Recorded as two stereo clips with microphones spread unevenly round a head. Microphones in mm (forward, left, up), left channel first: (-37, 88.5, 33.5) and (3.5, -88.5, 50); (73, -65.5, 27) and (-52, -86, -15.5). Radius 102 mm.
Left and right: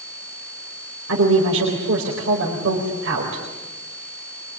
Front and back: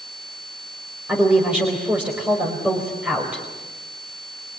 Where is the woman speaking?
90° right, 4.5 m.